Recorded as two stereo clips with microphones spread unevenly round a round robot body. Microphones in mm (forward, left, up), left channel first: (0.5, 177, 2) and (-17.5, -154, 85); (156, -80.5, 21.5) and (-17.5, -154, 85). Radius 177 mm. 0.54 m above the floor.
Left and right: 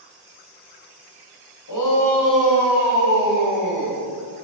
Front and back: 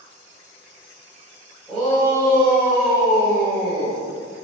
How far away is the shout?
About 2.5 m.